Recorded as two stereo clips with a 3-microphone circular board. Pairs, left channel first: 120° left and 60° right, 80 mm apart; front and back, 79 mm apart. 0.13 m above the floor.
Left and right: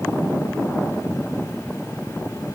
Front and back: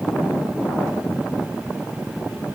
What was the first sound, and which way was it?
Only background noise.